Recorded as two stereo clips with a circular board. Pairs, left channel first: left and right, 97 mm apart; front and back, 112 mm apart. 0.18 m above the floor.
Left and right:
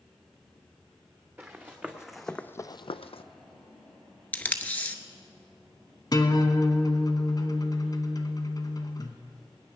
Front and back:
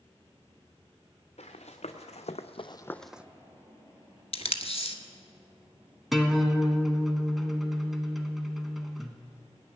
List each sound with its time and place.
1.4 s running footsteps: 15° right, 1.5 m; by 3.2 s 100° left, 0.6 m
4.3 s tape being pulled: 15° left, 0.7 m
6.1 s a guitar: 90° left, 1.0 m